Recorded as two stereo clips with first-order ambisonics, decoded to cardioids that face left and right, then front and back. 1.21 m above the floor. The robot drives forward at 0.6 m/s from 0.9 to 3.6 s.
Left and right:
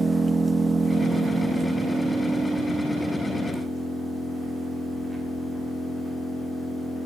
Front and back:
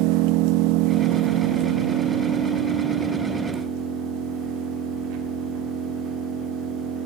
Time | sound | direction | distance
0.0 | an engine running | 165° right | 0.8 m